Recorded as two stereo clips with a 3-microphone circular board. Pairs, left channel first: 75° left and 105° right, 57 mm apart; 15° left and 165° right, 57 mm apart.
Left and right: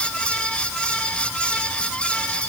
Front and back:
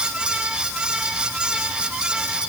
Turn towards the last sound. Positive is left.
No sound to turn to.